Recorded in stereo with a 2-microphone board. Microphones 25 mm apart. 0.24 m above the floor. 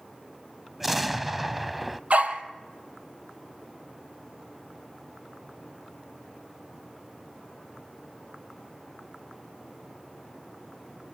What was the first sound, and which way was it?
An explosion, 10° right (ahead or behind).